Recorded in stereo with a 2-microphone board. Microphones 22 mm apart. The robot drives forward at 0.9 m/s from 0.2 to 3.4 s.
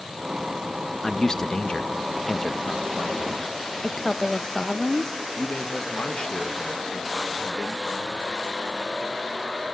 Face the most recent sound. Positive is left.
turn(degrees=50)  # may be behind; listen again after turning